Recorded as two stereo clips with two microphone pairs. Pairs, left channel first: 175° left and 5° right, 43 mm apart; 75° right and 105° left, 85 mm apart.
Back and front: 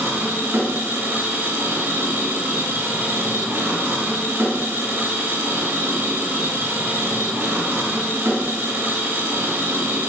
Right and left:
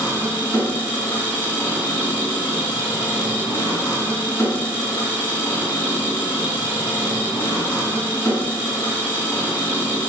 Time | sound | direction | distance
0.0 | an engine running | 10° right | 2.5 m